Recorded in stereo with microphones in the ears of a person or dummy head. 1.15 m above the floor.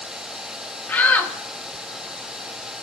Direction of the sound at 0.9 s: 10° left (ahead or behind).